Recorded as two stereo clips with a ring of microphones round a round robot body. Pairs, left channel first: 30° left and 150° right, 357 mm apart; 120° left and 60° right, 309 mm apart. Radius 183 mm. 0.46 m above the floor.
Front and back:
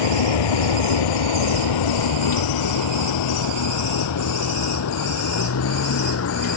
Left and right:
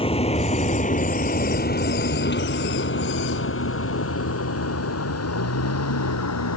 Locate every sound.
0.0 s a vehicle: 45° left; by 6.6 s 85° left